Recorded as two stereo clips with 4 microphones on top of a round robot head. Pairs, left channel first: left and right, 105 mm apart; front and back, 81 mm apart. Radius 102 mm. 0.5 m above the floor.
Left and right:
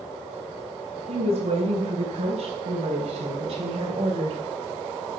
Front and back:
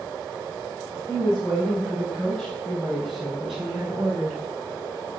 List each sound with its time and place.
1.1 s a woman speaking: 80° right, 4 m; by 4.4 s 95° right, 2.5 m